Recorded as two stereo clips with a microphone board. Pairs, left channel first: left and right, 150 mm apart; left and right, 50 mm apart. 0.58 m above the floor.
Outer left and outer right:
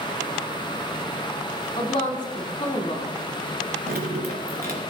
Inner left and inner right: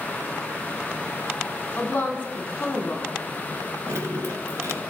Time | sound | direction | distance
1.8 | a woman speaking | 35° left (ahead or behind) | 1.7 m
3.9 | dripping | 80° right | 2.5 m